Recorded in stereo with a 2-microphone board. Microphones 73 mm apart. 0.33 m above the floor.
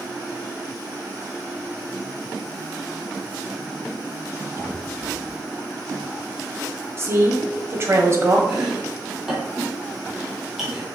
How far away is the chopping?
About 2 m.